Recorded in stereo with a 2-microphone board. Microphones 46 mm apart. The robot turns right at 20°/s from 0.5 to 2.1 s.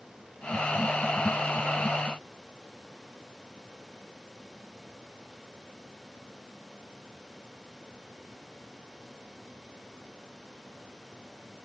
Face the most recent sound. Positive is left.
No sound to turn to.